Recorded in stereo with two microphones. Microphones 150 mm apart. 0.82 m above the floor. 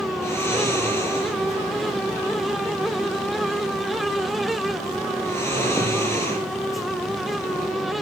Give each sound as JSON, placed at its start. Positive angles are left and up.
{"t": 0.2, "sound": "snoring", "side_deg": 15, "distance_m": 10.0}